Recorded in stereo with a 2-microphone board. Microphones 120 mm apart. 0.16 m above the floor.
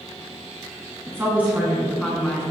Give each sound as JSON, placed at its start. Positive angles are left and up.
{"t": 1.1, "sound": "a woman speaking", "side_deg": -25, "distance_m": 1.6}